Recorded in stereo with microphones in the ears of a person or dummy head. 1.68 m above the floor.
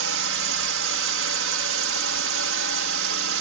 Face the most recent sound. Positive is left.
turn(degrees=-70)  # may be behind; listen again after turning